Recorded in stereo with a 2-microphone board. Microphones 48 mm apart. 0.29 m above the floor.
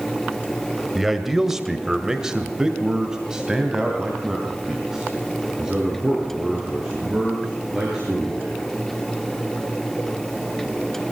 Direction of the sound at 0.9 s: 5° right (ahead or behind).